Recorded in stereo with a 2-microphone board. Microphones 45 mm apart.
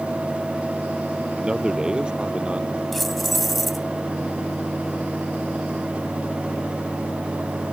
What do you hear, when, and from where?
1.4 s a man speaking: 15° right (ahead or behind); by 2.8 s 25° right (ahead or behind)
2.9 s keys jangling: centre (ahead or behind)